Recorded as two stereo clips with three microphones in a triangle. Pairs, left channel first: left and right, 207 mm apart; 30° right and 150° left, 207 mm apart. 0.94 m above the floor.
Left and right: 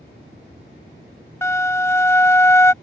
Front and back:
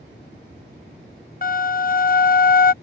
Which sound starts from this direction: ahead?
A flute, at 1.4 s.